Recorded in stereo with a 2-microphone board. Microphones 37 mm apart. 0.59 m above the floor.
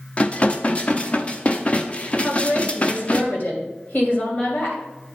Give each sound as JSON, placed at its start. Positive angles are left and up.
{"t": 0.2, "sound": "dishes clattering", "side_deg": 35, "distance_m": 0.6}
{"t": 2.2, "sound": "a woman speaking", "side_deg": 50, "distance_m": 2.5}